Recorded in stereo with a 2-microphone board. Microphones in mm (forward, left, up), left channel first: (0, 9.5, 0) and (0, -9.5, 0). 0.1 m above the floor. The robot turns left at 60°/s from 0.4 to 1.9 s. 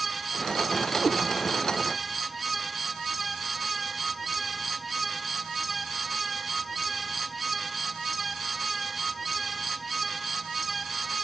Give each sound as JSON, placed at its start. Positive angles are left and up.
{"t": 1.0, "sound": "a cat meowing", "side_deg": 15, "distance_m": 1.2}